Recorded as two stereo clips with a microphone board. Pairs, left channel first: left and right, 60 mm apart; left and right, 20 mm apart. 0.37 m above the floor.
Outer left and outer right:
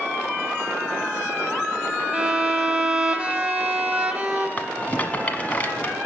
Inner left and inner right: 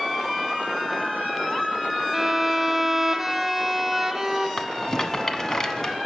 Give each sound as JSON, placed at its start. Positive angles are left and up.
{"t": 2.1, "sound": "a violin", "side_deg": -25, "distance_m": 0.9}
{"t": 4.6, "sound": "a rattle", "side_deg": 25, "distance_m": 0.7}